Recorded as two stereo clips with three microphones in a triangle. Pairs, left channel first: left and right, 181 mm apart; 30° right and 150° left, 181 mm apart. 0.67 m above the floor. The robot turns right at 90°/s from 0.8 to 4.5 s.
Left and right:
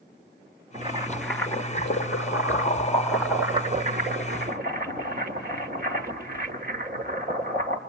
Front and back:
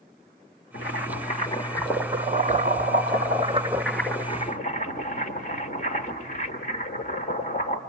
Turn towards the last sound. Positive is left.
turn(degrees=-65)